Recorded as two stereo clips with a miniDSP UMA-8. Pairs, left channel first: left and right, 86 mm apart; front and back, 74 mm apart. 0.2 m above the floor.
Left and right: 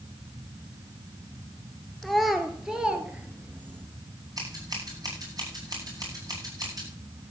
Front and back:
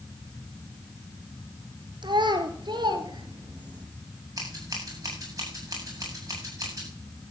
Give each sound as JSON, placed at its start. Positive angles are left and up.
{"t": 2.0, "sound": "a child speaking", "azimuth_deg": 180, "distance_m": 2.5}
{"t": 4.4, "sound": "scissors", "azimuth_deg": -135, "distance_m": 9.0}